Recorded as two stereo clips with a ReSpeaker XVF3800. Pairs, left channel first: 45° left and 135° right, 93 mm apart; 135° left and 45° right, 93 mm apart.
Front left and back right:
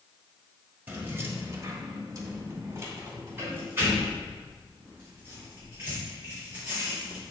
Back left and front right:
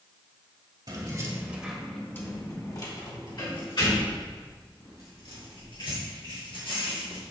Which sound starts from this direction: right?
Keys jangling, at 0.9 s.